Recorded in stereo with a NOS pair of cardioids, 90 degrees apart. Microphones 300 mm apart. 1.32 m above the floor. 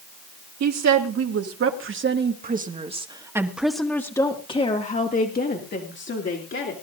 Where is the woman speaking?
60° right, 2.5 m; by 6.7 s 40° left, 3.5 m.